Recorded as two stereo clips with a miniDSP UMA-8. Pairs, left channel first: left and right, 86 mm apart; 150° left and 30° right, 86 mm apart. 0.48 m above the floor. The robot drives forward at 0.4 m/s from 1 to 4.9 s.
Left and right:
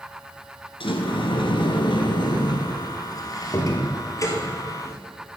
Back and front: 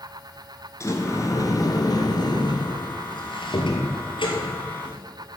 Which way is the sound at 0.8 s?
95° left.